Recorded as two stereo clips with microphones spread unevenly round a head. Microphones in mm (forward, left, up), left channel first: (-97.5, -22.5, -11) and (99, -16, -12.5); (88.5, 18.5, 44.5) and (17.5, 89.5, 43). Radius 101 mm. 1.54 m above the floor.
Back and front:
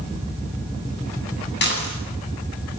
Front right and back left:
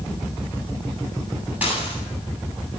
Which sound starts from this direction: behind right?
Dishes clattering, at 1.6 s.